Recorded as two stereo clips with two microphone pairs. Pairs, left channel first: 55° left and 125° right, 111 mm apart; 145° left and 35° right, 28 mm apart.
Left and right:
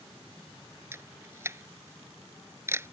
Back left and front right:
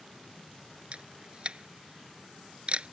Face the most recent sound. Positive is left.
turn(degrees=-65)